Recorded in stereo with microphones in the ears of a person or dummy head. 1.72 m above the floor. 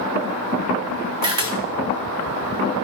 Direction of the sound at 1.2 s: 20° right (ahead or behind).